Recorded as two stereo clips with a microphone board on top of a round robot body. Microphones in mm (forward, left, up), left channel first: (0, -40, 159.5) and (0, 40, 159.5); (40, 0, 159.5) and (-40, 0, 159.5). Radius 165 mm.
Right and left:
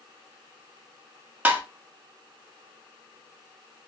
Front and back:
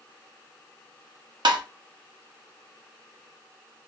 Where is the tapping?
160° left, 0.6 m.